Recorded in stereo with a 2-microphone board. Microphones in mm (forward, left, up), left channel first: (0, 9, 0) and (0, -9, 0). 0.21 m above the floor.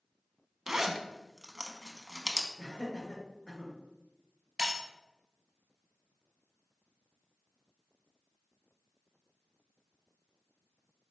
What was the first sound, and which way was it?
A zipper, 30° right (ahead or behind).